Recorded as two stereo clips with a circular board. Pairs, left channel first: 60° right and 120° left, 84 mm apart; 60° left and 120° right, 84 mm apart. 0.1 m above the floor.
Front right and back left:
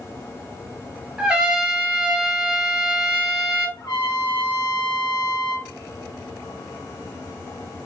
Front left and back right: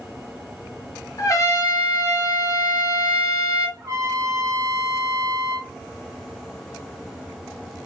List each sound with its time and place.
1.2 s a trumpet: 45° left, 1.4 m
3.8 s a trumpet: 75° right, 3.5 m